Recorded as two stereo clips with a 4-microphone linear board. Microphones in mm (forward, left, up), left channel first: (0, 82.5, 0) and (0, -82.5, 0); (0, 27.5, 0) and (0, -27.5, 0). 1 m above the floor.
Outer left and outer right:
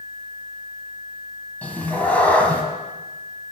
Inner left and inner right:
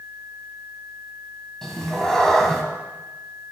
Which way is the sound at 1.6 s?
10° left (ahead or behind).